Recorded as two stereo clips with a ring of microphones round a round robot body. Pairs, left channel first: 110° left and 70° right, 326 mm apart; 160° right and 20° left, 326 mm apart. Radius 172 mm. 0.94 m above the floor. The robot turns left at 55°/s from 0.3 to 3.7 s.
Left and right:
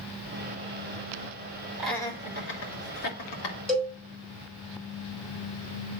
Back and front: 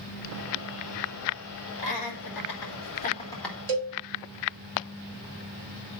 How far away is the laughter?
About 2.5 m.